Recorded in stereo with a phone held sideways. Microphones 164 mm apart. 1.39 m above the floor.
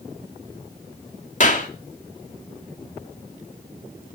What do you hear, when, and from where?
1.4 s a clap: 50° left (ahead or behind), 2.5 m